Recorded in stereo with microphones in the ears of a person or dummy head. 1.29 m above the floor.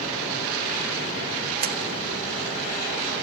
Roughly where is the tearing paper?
Right.